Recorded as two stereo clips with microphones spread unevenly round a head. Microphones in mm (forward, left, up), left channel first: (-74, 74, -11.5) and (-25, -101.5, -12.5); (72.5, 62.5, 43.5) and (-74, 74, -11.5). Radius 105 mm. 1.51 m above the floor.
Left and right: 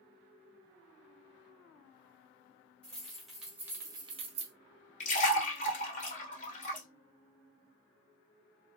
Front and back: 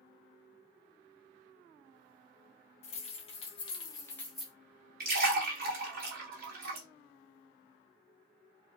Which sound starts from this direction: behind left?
A splash, at 5.0 s.